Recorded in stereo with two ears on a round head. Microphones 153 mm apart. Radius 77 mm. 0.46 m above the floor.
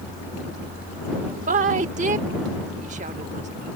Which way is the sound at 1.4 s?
45° right (ahead or behind).